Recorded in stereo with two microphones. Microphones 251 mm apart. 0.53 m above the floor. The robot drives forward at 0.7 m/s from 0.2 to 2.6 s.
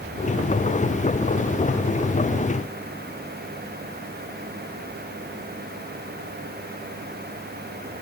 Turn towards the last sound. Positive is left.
No sound to turn to.